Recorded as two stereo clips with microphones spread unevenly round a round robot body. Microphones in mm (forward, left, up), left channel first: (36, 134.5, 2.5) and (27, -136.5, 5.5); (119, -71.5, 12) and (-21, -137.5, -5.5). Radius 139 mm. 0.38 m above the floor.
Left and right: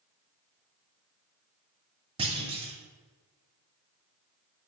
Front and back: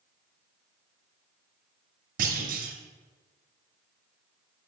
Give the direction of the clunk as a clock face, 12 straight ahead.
5 o'clock.